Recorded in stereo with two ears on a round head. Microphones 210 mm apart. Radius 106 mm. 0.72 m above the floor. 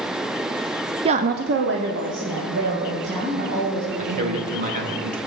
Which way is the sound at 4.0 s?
35° right (ahead or behind).